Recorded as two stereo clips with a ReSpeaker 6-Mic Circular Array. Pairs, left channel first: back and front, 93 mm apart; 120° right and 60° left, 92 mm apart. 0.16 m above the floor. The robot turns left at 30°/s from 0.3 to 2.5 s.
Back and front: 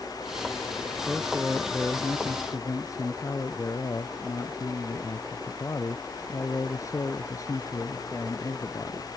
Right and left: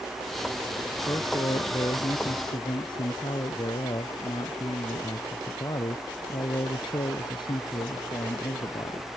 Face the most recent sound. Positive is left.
turn(degrees=-135)